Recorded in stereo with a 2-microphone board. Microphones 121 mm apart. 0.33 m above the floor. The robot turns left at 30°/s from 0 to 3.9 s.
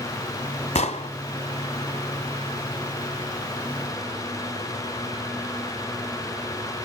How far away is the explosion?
About 1.1 m.